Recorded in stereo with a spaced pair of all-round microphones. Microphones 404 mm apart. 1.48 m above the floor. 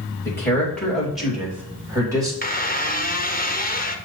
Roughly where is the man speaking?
Centre.